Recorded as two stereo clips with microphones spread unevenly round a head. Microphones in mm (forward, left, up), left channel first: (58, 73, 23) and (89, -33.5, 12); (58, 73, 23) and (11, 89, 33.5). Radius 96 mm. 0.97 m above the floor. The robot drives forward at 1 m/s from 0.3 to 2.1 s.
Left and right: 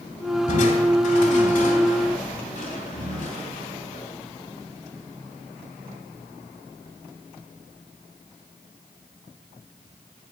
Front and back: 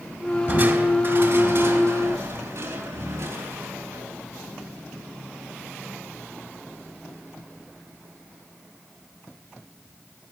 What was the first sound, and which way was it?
Crushing, 110° left.